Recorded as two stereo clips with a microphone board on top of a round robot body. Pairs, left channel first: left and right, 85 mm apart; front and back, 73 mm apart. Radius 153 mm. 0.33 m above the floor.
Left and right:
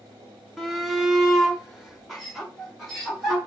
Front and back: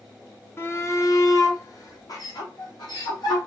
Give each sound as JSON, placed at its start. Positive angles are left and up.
{"t": 0.6, "sound": "a shout", "azimuth_deg": 0, "distance_m": 1.1}